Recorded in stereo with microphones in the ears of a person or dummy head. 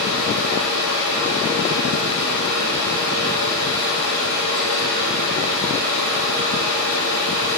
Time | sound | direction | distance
0.0 | a fan | 65° right (ahead or behind) | 4.5 m